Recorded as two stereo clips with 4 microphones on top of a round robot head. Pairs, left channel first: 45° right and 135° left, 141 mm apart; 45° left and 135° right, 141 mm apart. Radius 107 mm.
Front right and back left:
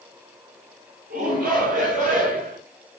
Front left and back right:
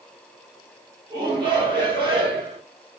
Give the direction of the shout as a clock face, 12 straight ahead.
6 o'clock.